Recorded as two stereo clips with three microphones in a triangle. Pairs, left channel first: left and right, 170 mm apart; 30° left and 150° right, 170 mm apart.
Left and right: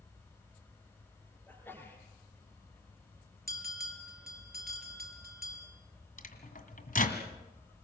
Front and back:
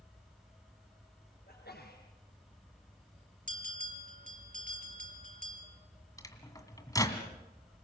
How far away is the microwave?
About 2 m.